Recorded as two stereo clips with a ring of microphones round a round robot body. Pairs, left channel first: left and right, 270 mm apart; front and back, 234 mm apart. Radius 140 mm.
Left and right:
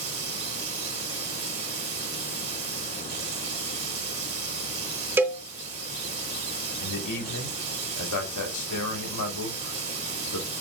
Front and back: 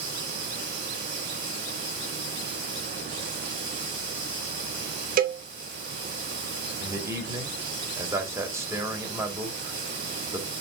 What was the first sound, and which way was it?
Running water, 125° right.